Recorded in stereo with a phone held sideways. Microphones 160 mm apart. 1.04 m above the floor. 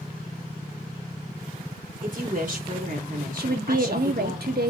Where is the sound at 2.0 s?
55° right (ahead or behind), 2 m.